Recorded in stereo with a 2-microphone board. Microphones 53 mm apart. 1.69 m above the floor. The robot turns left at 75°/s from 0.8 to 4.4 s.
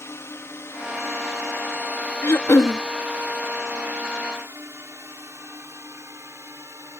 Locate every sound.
0.0 s a drone: 55° left (ahead or behind); by 7.0 s 60° right (ahead or behind)
2.2 s throat clearing: 125° left; by 2.8 s 80° left